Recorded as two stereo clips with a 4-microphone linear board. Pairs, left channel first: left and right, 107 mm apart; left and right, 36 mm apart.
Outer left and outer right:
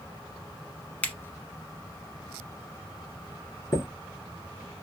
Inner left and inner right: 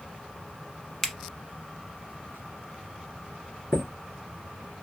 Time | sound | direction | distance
1.0 | a finger snap | 15° left (ahead or behind) | 1.0 m
3.7 | a chime | 35° left (ahead or behind) | 1.3 m